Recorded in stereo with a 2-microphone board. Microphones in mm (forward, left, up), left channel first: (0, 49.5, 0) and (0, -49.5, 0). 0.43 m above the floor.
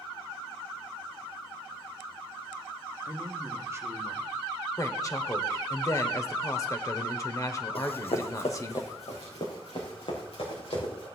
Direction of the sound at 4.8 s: 35° left (ahead or behind).